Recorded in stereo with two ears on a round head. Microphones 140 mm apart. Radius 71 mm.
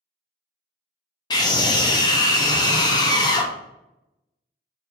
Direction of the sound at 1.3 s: 25° left (ahead or behind).